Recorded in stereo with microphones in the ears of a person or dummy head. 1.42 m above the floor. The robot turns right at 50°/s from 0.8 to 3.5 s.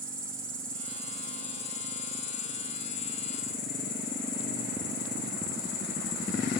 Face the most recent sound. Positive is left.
turn(degrees=125)